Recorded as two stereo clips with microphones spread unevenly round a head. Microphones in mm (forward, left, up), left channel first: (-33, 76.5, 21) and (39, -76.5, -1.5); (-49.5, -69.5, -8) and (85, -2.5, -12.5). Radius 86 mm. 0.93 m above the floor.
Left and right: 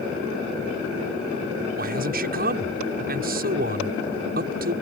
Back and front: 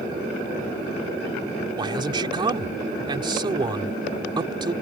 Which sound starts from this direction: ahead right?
A man speaking, at 1.8 s.